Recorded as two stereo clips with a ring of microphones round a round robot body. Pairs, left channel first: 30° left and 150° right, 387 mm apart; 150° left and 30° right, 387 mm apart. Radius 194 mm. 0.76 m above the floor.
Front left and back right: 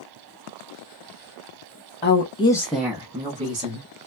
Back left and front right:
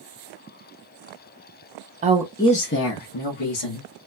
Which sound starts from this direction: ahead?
A woman speaking, at 2.0 s.